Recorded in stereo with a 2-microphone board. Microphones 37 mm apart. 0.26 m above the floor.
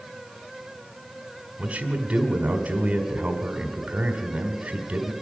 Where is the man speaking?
35° right (ahead or behind), 1.6 m.